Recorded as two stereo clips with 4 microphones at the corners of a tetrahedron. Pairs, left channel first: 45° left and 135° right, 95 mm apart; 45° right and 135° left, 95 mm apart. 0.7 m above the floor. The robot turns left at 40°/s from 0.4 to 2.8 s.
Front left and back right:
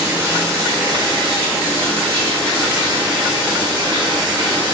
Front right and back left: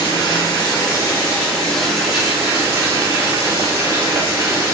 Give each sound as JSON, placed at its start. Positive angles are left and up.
{"t": 0.0, "sound": "running water", "azimuth_deg": -80, "distance_m": 1.2}